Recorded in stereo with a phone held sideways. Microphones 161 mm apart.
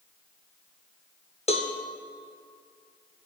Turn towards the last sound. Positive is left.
turn(degrees=40)  # may be behind; listen again after turning